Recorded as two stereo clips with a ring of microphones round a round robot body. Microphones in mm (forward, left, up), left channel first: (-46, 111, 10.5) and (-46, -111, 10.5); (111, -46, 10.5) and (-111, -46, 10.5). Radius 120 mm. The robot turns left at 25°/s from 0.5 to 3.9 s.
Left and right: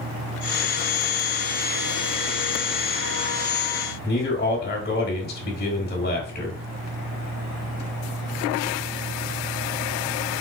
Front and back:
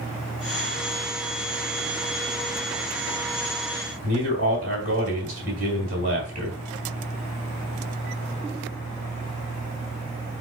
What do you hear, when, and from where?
4.0 s a man speaking: 130° left, 2 m